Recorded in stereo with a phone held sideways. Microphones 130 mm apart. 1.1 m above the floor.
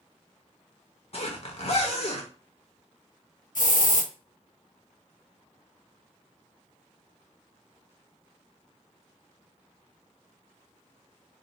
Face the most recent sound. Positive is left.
turn(degrees=85)